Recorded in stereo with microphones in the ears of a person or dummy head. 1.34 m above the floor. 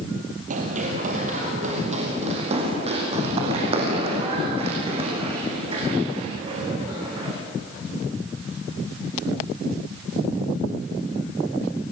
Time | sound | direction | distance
0.5 | running footsteps | 40° right (ahead or behind) | 2.5 m